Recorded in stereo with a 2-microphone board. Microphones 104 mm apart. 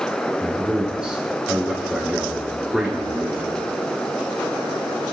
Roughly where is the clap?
No clap in this recording.